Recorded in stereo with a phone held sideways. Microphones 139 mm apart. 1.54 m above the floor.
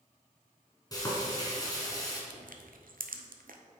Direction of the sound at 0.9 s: 25° left (ahead or behind).